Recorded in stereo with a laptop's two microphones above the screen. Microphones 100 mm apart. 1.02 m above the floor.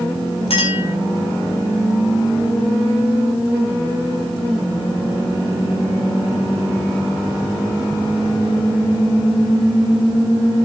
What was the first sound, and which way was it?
A clink, 85° left.